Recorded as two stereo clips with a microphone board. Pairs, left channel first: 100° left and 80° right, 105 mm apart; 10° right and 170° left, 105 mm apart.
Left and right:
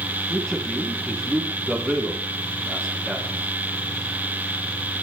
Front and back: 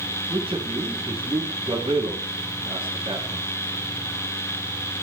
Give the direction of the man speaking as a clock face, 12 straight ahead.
5 o'clock.